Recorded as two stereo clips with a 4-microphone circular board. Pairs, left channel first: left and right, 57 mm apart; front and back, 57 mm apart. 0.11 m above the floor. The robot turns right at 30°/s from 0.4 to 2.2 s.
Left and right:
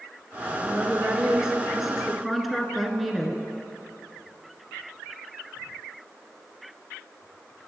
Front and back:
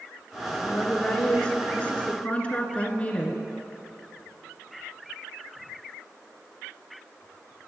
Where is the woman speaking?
50° right, 1.1 m; by 3.4 s straight ahead, 1.1 m.